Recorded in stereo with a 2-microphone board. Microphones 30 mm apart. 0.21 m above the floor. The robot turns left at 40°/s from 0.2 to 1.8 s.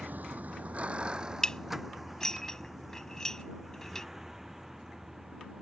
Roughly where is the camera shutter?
No camera shutter in this recording.